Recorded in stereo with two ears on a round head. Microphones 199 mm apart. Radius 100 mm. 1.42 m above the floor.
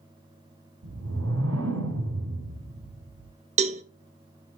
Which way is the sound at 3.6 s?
30° right (ahead or behind).